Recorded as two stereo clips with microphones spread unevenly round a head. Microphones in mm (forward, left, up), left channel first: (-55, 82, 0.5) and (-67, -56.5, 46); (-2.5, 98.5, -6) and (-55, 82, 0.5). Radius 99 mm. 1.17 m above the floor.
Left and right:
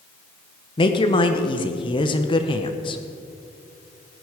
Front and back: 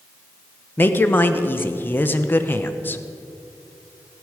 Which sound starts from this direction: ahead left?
A woman speaking, at 0.8 s.